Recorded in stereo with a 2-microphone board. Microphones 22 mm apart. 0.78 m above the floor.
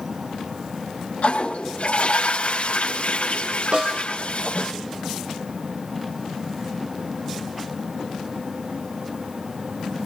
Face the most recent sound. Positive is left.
turn(degrees=-60)  # may be behind; listen again after turning